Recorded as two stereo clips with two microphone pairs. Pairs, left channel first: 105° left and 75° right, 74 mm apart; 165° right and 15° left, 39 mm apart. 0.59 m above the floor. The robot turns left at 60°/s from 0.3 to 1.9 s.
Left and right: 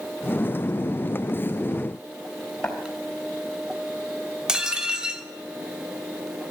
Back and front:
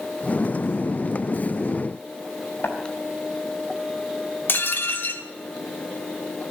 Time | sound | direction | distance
2.6 | tapping | 175° right | 4 m
4.5 | dishes clattering | 155° right | 1.0 m